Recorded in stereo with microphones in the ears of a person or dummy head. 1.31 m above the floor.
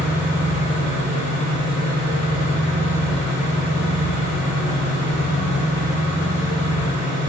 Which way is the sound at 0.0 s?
30° left (ahead or behind).